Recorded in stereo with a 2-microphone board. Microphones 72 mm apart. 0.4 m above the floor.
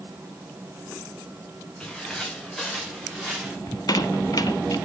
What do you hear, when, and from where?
1.8 s footsteps: 10° left (ahead or behind), 3.5 m; by 3.6 s 10° right (ahead or behind), 3.5 m
3.7 s a squeak: 55° left (ahead or behind), 0.7 m